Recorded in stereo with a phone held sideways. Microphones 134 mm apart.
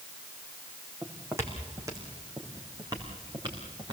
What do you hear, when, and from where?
1.0 s footsteps: 20° right (ahead or behind), 3.5 m; by 3.9 s 35° right (ahead or behind), 5 m